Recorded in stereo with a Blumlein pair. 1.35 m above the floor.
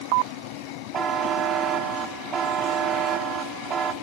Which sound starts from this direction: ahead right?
A buzzer, at 0.9 s.